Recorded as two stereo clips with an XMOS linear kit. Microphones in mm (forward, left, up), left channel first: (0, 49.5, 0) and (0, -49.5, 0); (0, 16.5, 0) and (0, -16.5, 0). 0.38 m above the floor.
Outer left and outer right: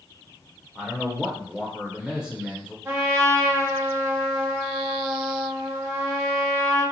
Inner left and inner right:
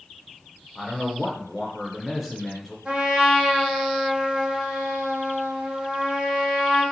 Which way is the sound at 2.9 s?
25° right (ahead or behind).